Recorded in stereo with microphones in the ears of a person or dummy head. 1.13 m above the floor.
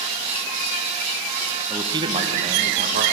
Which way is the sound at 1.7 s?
10° right (ahead or behind).